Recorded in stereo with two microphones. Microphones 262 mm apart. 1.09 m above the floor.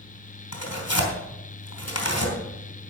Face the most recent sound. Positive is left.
turn(degrees=80)